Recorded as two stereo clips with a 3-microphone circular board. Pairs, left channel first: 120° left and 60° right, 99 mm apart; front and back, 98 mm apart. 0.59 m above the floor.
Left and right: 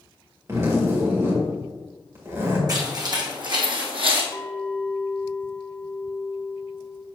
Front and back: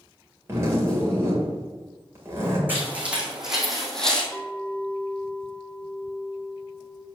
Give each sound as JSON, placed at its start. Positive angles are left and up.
{"t": 0.5, "sound": "a zipper", "azimuth_deg": -115, "distance_m": 2.0}
{"t": 2.7, "sound": "footsteps", "azimuth_deg": -110, "distance_m": 2.5}
{"t": 4.3, "sound": "a clink", "azimuth_deg": 80, "distance_m": 1.0}